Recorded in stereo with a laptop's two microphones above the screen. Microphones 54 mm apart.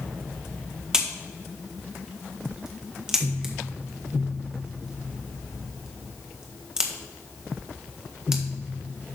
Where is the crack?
15° right (ahead or behind), 1.5 m.